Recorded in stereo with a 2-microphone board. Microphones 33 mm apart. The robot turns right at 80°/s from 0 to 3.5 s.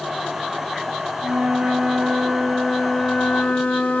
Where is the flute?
90° right, 0.8 m; by 4.0 s 95° left, 0.8 m.